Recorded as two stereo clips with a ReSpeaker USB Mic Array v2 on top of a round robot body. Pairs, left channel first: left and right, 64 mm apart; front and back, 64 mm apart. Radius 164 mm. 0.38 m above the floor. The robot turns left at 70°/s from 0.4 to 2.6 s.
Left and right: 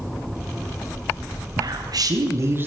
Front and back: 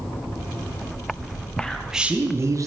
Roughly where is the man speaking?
Right.